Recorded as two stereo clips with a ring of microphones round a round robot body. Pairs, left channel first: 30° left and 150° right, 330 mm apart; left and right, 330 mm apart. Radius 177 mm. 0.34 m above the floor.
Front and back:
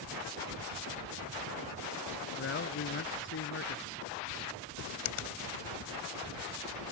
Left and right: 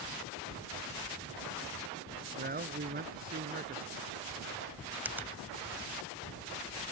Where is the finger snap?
5° right.